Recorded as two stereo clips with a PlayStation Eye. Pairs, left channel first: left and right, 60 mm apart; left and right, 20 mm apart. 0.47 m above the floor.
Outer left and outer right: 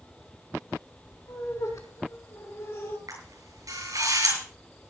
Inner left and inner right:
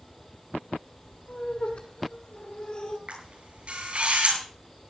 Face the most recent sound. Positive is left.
turn(degrees=-75)  # may be behind; listen again after turning